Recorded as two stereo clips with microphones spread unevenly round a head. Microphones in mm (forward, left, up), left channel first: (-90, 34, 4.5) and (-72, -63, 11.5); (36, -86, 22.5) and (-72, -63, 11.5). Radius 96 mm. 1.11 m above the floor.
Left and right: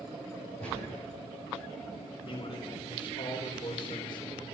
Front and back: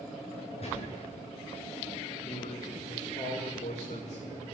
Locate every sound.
0.6 s a gunshot: 35° right, 9 m
2.2 s a man speaking: 35° left, 4 m